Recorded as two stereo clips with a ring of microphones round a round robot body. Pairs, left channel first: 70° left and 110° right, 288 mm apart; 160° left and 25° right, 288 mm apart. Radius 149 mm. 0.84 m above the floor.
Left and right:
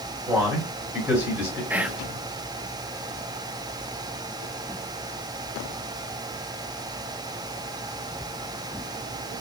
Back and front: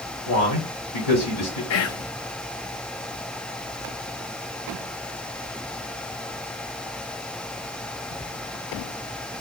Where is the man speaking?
165° left, 2.5 m.